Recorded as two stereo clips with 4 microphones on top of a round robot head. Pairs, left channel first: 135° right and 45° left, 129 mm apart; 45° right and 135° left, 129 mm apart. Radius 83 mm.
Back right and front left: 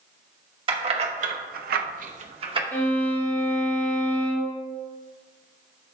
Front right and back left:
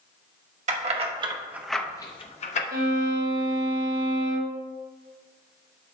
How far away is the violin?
About 1.6 m.